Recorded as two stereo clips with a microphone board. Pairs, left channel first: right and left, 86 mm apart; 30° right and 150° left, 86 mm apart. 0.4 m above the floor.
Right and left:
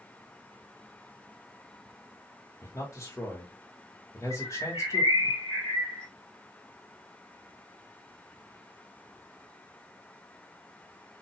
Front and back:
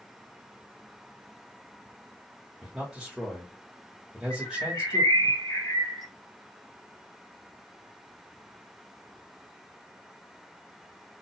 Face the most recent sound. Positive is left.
turn(degrees=-75)